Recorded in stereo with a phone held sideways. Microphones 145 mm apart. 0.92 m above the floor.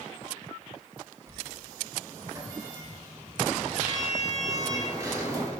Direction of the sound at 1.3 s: 25° right (ahead or behind).